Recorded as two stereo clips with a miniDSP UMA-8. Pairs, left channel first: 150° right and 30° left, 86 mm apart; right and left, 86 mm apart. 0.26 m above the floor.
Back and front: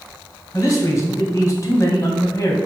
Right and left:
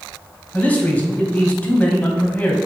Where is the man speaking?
150° right, 1.7 m.